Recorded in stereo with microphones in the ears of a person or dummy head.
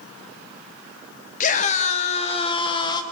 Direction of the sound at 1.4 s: 45° left (ahead or behind).